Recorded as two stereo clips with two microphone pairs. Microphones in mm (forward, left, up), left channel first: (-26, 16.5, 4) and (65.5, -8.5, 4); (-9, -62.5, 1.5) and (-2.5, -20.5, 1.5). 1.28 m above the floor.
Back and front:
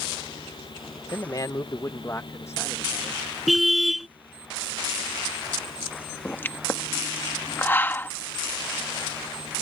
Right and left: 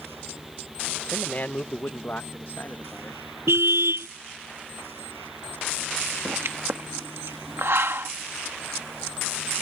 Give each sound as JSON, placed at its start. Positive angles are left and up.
{"t": 1.1, "sound": "a man speaking", "azimuth_deg": -150}
{"t": 3.5, "sound": "a car horn", "azimuth_deg": 75}
{"t": 6.2, "sound": "a pop", "azimuth_deg": 95}